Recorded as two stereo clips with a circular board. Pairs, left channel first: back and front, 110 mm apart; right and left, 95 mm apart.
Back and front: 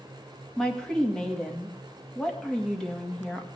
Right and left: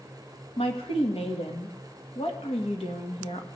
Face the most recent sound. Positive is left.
turn(degrees=-95)